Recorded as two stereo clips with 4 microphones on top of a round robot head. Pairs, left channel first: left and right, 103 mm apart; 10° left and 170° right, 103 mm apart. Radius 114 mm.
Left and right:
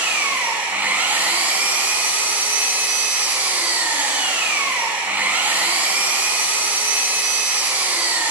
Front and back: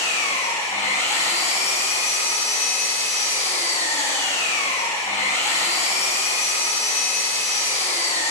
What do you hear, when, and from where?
0.0 s an engine running: 20° right, 5 m